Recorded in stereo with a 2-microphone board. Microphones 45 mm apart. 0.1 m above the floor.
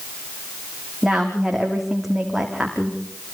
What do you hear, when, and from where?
1.0 s a woman speaking: 5° right (ahead or behind), 6 m